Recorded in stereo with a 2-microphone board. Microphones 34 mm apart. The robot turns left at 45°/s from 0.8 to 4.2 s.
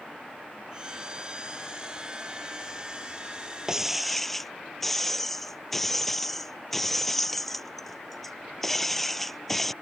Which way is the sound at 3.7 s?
15° right (ahead or behind).